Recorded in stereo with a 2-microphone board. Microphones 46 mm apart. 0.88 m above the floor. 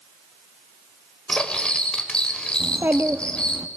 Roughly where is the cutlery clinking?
Centre.